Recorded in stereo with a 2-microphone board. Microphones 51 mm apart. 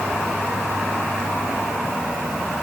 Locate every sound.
Only background noise.